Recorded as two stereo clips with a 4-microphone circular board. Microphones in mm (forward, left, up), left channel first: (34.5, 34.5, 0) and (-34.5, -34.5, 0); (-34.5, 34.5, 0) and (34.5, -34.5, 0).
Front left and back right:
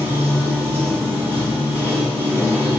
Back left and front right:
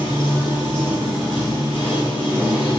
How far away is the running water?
About 1.9 m.